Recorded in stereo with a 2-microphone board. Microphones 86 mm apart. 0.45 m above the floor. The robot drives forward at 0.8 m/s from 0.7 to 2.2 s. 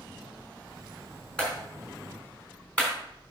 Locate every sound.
1.4 s a clap: 10° left (ahead or behind), 4 m